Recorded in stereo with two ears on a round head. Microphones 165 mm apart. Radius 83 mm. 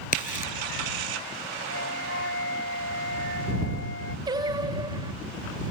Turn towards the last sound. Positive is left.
turn(degrees=-20)  # may be behind; listen again after turning